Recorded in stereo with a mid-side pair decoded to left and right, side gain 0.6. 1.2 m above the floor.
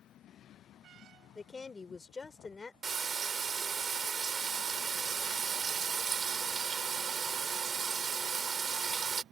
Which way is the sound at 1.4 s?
25° left.